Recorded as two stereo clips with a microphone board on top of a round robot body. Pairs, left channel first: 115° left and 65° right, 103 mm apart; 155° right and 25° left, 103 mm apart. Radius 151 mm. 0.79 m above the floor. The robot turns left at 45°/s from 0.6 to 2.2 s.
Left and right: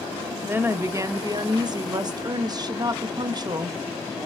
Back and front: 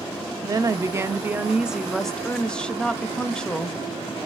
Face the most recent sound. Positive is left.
turn(degrees=-80)